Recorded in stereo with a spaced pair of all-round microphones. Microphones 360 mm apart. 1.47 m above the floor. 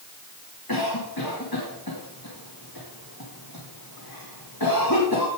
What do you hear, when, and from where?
0.7 s a cough: 75° left (ahead or behind), 2 m